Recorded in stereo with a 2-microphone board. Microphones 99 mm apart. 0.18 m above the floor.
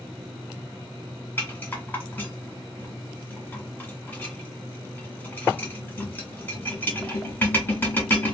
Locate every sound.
1.4 s a rattle: 20° left (ahead or behind), 1.4 m